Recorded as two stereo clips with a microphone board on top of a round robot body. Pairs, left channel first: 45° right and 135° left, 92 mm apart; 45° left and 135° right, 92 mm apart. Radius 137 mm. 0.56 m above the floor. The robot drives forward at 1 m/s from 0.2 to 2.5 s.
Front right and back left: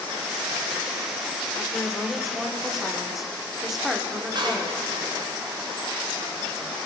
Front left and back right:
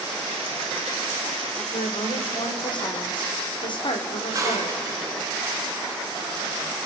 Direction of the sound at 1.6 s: 35° left.